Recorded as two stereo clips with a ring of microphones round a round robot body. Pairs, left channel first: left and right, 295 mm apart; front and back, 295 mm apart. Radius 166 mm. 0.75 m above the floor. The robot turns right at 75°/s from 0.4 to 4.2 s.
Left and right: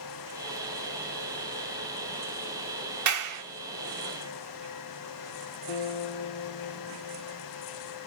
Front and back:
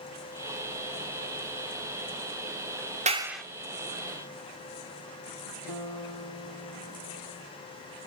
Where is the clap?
115° right, 1.9 m; by 3.4 s 85° right, 1.9 m.